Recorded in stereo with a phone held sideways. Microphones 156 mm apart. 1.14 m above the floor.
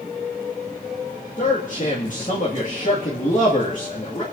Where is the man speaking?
55° left (ahead or behind), 1.9 m.